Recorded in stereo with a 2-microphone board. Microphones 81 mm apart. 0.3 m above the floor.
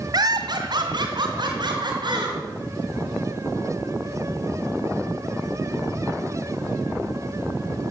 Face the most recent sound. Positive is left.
turn(degrees=-65)  # may be behind; listen again after turning